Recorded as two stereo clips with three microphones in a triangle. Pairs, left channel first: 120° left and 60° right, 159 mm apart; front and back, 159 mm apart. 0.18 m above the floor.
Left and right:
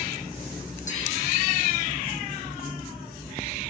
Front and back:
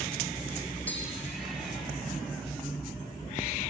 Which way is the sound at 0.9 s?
80° left.